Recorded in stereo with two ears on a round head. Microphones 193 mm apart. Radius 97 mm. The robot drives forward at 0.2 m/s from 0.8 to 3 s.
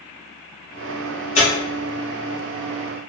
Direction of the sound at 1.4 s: 35° left (ahead or behind).